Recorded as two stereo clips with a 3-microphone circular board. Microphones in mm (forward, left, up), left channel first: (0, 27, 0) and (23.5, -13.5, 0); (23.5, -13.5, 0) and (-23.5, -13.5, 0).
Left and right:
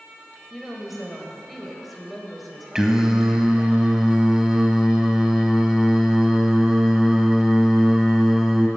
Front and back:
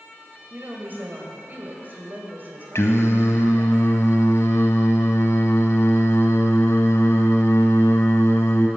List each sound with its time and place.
0.5 s a woman speaking: 150° right, 1.6 m
2.8 s singing: 20° left, 0.7 m